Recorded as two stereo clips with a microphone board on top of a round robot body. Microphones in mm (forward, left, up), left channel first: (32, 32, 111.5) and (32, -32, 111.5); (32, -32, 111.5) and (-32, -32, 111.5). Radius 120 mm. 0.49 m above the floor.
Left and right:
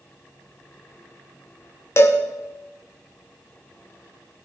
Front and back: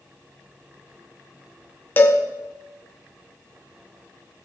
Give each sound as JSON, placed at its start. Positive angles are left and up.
{"t": 2.0, "sound": "a cowbell", "azimuth_deg": 55, "distance_m": 2.0}